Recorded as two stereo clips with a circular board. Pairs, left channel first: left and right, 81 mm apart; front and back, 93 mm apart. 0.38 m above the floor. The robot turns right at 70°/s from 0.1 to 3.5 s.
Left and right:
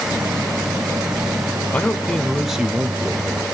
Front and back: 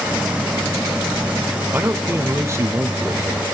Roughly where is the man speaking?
Behind left.